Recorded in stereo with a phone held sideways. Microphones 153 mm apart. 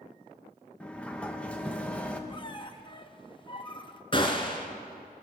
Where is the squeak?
35° left (ahead or behind), 0.8 m.